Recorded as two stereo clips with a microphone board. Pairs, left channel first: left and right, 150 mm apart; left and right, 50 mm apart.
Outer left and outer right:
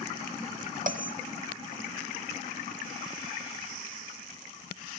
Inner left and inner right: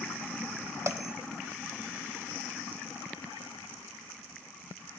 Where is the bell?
65° right (ahead or behind), 0.9 m.